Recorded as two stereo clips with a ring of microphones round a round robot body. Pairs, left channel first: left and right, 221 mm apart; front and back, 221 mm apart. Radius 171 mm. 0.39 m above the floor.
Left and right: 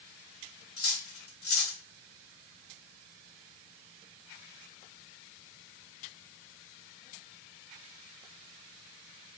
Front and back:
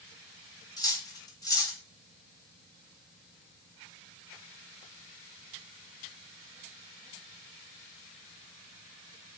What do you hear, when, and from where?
0.8 s cutlery clinking: 75° left, 1.1 m